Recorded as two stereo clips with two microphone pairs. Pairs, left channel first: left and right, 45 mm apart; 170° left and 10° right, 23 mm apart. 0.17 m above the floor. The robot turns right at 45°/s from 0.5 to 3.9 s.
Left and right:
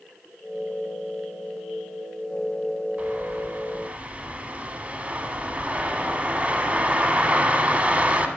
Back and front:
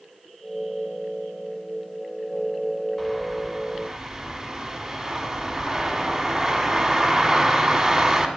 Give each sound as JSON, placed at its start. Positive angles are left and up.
{"t": 3.0, "sound": "a bird", "azimuth_deg": -110, "distance_m": 1.0}